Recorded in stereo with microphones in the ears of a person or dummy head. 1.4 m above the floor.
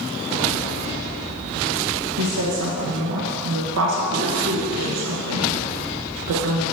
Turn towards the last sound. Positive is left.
turn(degrees=-75)  # may be behind; listen again after turning